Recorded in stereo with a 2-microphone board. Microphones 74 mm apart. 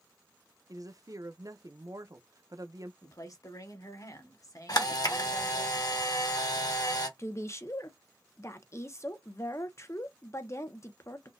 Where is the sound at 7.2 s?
40° left (ahead or behind), 0.8 m.